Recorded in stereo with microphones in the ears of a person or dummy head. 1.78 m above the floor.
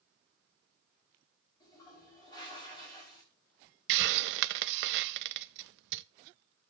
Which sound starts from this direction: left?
A toilet flushing, at 1.6 s.